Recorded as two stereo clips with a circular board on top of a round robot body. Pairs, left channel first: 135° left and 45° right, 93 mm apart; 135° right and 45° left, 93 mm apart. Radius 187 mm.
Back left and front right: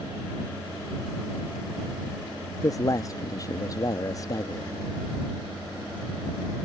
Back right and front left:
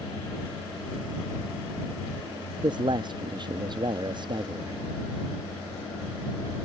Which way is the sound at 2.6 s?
85° left.